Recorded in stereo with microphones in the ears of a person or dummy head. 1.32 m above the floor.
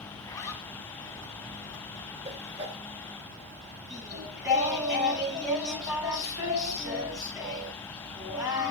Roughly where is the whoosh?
Right.